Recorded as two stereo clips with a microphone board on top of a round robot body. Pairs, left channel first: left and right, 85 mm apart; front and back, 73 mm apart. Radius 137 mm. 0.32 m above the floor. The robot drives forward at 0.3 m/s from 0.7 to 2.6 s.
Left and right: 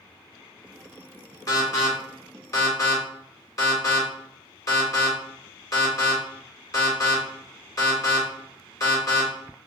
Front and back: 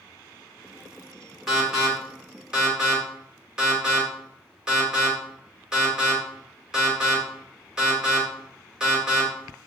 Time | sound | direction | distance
1.5 | an alarm | 95° left | 2.5 m